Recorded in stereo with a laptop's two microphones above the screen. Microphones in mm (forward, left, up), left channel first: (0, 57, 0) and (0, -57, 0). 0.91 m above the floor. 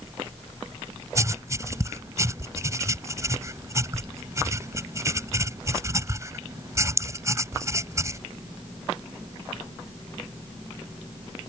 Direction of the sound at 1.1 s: 25° right (ahead or behind).